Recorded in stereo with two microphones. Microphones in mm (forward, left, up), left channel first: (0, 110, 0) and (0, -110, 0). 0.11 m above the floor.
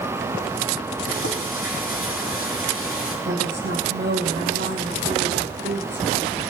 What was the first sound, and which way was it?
Frying, 75° left (ahead or behind).